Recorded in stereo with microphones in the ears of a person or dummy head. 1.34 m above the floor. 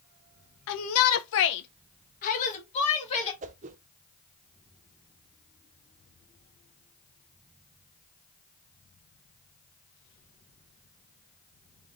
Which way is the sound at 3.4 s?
35° right (ahead or behind).